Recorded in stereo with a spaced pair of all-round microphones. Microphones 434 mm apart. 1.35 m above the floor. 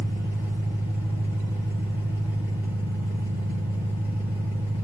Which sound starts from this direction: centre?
An engine running, at 0.0 s.